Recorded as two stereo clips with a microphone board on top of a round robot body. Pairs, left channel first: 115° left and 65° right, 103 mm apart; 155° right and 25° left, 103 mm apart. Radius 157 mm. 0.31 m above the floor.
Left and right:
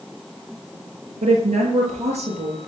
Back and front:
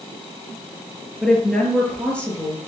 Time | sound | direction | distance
1.2 | a woman speaking | 70° right | 8 m